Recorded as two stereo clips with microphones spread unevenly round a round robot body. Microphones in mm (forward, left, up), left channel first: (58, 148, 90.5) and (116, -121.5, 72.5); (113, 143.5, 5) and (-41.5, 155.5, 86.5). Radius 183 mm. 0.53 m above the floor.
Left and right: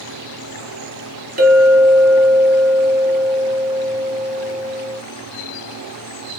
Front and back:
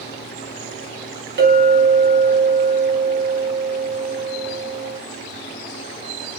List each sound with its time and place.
1.4 s a clink: 135° right, 1.1 m